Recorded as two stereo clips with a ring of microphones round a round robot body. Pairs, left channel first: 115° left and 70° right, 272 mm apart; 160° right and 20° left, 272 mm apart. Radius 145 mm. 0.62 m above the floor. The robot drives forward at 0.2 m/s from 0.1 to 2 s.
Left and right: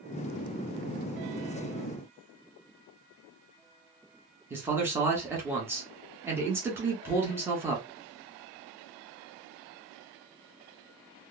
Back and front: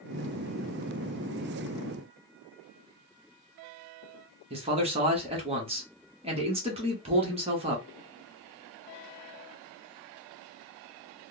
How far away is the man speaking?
About 1.1 m.